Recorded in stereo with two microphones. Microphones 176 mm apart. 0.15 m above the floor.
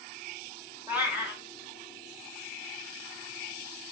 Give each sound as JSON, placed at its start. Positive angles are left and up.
{"t": 0.9, "sound": "a cat meowing", "side_deg": -10, "distance_m": 0.8}